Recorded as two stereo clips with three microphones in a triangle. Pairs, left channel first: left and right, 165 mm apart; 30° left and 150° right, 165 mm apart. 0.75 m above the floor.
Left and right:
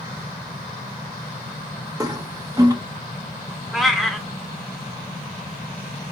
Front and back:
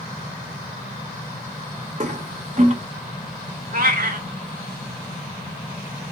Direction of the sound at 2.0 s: 150° right.